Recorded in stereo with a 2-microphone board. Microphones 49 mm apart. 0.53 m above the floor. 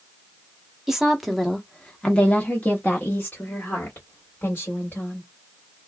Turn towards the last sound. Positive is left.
turn(degrees=50)  # may be behind; listen again after turning